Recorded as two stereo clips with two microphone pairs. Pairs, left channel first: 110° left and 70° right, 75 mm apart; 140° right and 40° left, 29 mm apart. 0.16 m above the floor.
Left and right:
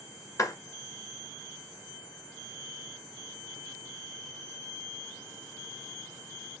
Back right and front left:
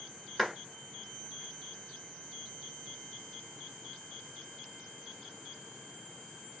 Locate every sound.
0.4 s a clap: 135° left, 1.8 m